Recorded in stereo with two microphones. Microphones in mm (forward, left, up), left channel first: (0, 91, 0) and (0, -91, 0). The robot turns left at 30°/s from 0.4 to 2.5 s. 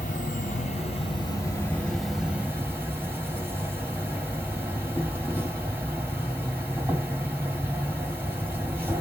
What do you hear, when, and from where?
0.0 s an insect: 50° left, 2 m; by 9.0 s 10° right, 2 m